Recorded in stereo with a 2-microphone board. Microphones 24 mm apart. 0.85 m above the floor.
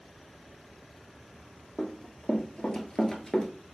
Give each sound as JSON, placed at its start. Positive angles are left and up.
{"t": 1.8, "sound": "running footsteps", "side_deg": 65, "distance_m": 1.7}